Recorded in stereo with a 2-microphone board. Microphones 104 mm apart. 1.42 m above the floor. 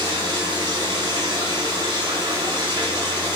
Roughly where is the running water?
Right.